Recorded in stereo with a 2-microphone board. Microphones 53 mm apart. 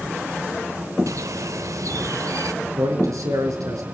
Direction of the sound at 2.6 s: 85° right.